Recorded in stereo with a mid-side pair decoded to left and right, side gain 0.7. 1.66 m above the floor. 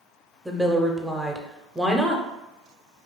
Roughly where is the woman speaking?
Ahead.